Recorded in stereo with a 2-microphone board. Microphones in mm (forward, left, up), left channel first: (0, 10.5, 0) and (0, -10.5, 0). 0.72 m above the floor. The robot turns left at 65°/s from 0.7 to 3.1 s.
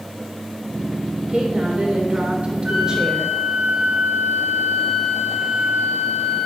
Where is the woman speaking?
45° right, 3 m; by 3.4 s 165° right, 3 m.